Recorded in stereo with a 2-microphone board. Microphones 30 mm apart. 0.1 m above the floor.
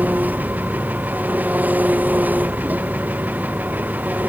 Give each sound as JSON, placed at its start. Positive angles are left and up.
{"t": 0.0, "sound": "an engine running", "side_deg": -70}